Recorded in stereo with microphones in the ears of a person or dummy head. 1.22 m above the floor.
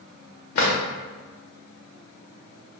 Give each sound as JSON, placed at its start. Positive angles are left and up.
{"t": 0.6, "sound": "a drawer", "side_deg": 45, "distance_m": 1.0}